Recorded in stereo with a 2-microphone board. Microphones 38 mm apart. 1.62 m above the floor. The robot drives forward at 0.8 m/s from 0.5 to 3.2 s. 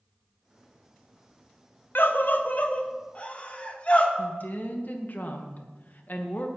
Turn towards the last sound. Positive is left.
turn(degrees=50)  # may be behind; listen again after turning